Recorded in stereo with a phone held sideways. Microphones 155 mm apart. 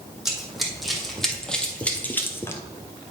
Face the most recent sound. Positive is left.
turn(degrees=20)  # may be behind; listen again after turning